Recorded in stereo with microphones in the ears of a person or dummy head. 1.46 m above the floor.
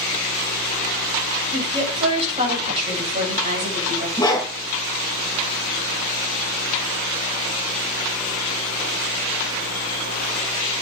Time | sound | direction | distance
1.5 | a woman speaking | 30° right (ahead or behind) | 7.5 m
4.2 | a dog barking | 20° left (ahead or behind) | 7 m